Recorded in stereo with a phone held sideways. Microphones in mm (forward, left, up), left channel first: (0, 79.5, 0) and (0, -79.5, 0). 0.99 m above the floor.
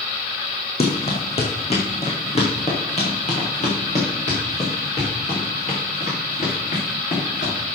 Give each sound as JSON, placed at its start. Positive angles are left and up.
{"t": 0.8, "sound": "running footsteps", "side_deg": 40, "distance_m": 2.5}